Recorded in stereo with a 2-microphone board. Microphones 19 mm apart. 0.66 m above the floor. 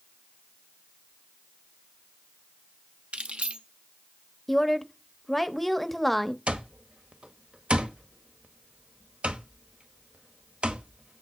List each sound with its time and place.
3.1 s keys jangling: 80° right, 1.0 m
4.5 s a woman speaking: 10° left (ahead or behind), 0.8 m
6.5 s an alarm clock: 80° right, 1.1 m